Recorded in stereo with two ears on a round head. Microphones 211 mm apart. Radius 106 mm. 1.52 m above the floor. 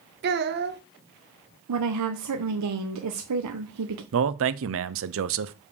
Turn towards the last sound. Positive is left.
turn(degrees=-60)  # may be behind; listen again after turning